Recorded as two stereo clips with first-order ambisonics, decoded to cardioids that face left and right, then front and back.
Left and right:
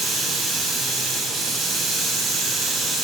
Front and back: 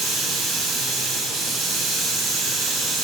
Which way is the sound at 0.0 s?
150° right.